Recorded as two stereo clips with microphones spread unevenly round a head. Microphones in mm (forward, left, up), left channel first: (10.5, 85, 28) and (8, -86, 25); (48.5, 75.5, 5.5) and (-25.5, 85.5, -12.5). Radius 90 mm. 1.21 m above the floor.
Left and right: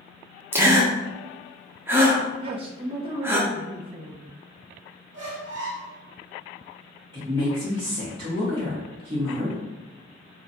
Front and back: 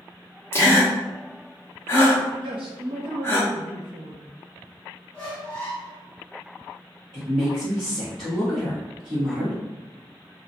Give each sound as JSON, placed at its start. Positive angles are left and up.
{"t": 0.5, "sound": "a gasp", "azimuth_deg": -40, "distance_m": 0.6}
{"t": 2.4, "sound": "a man speaking", "azimuth_deg": -150, "distance_m": 0.5}
{"t": 5.1, "sound": "a squeak", "azimuth_deg": -80, "distance_m": 0.9}
{"t": 7.1, "sound": "a woman speaking", "azimuth_deg": -155, "distance_m": 1.1}